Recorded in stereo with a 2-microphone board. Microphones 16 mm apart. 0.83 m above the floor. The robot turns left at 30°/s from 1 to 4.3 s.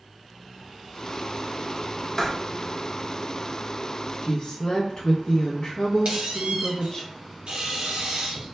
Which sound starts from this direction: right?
A squeak, at 6.0 s.